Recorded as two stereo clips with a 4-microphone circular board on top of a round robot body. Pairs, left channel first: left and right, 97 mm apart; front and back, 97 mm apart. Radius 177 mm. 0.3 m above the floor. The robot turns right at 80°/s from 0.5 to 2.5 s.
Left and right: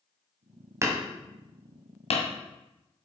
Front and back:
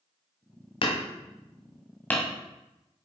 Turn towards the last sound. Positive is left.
turn(degrees=105)